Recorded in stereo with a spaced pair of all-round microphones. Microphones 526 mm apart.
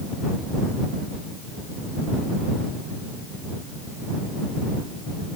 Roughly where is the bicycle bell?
No bicycle bell in this recording.